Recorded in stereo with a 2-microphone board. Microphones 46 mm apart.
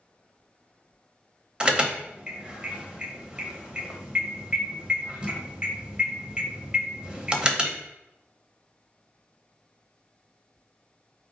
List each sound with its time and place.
1.6 s an alarm: 25° right (ahead or behind), 0.8 m